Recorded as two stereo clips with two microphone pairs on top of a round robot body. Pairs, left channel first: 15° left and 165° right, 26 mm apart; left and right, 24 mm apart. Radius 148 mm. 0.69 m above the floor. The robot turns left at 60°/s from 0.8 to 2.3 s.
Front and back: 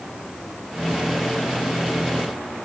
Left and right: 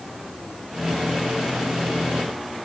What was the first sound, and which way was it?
Only background noise.